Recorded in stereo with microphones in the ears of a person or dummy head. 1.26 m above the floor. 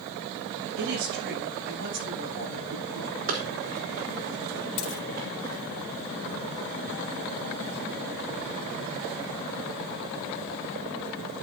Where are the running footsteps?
55° right (ahead or behind), 4.5 m; by 5.8 s 60° right (ahead or behind), 6.5 m.